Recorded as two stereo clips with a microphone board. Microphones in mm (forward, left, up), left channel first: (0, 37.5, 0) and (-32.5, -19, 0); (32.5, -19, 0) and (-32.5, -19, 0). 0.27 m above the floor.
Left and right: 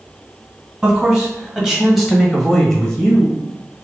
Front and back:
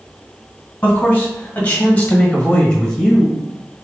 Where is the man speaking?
50° right, 1.7 m; by 3.4 s 80° left, 1.2 m.